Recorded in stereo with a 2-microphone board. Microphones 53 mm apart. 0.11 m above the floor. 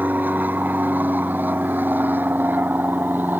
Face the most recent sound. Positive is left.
turn(degrees=-35)  # may be behind; listen again after turning